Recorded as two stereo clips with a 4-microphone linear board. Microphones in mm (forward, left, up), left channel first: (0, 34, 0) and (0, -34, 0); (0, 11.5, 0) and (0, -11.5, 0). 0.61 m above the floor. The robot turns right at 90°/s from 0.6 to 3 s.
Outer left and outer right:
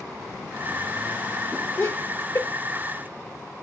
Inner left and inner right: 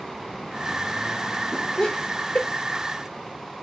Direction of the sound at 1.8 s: 40° left (ahead or behind).